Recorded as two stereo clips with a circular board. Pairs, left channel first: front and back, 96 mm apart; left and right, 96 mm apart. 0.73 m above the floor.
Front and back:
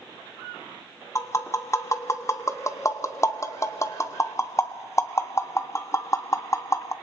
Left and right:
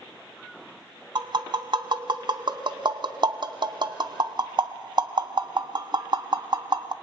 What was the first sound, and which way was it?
Tapping, 55° right.